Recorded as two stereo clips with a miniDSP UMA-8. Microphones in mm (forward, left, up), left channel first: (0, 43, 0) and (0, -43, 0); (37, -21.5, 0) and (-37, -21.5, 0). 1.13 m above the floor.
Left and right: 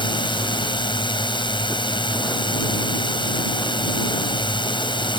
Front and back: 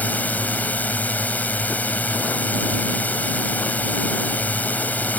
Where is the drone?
70° left.